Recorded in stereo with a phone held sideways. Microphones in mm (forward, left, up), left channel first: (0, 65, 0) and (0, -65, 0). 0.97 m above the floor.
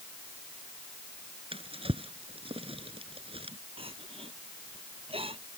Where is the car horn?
I don't hear a car horn.